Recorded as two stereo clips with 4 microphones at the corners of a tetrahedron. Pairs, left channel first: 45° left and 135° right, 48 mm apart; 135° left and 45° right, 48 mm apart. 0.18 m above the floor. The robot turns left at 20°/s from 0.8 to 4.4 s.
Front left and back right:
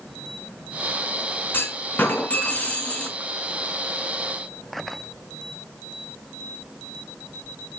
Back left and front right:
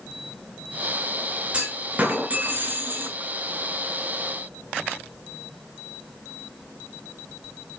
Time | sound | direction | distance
1.5 | a clunk | 10° left | 2.5 m